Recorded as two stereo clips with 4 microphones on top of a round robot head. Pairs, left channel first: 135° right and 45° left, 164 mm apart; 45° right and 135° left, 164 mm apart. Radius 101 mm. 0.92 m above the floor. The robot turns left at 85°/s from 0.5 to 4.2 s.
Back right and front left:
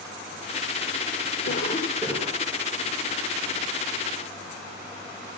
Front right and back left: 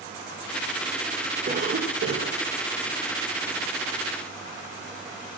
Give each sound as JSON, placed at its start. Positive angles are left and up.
{"t": 1.5, "sound": "a cough", "azimuth_deg": -175, "distance_m": 3.0}